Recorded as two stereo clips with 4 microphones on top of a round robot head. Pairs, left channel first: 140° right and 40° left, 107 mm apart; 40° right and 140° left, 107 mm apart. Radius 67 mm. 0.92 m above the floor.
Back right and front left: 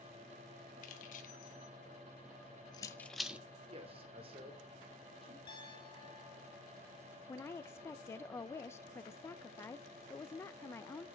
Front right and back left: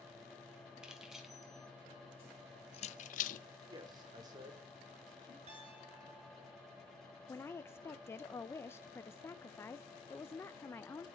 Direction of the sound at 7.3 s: 90° right.